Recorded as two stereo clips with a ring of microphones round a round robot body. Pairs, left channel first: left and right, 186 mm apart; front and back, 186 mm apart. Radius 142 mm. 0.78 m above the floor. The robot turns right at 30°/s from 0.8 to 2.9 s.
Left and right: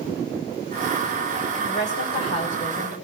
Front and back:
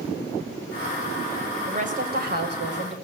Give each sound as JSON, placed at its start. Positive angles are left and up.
{"t": 1.7, "sound": "a woman speaking", "azimuth_deg": 130, "distance_m": 4.5}